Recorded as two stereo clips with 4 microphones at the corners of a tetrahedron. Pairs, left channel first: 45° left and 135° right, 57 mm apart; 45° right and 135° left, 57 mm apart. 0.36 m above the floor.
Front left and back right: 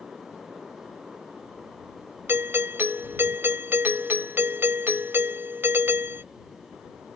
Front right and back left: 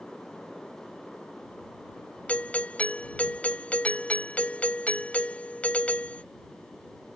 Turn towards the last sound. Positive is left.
turn(degrees=-105)